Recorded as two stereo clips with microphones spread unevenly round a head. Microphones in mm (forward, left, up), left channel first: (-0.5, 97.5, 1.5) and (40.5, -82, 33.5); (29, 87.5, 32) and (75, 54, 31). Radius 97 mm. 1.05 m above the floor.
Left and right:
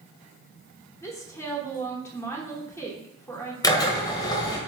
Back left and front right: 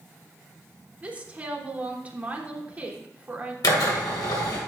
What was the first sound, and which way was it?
A woman speaking, 30° left.